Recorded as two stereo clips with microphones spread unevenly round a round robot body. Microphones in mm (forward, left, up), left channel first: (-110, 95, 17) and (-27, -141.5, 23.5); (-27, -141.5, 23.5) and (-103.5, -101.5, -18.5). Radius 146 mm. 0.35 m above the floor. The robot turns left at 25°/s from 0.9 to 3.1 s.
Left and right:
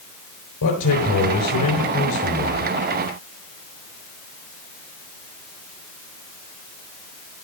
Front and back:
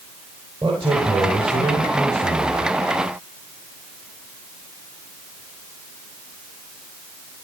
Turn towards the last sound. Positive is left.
turn(degrees=35)